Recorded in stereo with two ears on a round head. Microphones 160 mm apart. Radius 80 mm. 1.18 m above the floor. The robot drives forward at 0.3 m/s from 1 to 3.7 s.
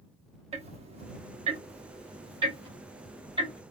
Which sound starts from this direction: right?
Ticking, at 0.5 s.